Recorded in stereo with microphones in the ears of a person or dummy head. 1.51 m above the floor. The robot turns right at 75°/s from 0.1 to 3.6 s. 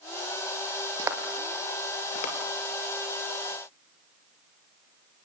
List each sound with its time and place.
1.0 s footsteps: 25° right (ahead or behind), 2 m; by 2.3 s 45° left (ahead or behind), 2.5 m